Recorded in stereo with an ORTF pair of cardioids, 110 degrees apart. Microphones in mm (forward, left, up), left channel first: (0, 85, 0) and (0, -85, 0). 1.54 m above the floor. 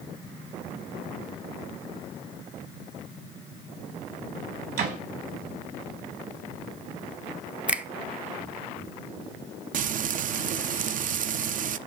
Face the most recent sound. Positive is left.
turn(degrees=-50)